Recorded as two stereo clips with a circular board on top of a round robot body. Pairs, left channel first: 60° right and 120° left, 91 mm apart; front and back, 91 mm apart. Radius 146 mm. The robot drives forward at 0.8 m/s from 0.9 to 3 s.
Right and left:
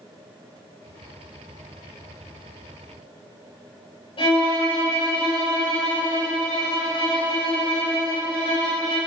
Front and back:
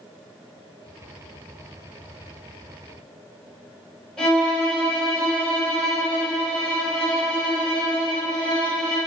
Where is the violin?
85° right, 3 m.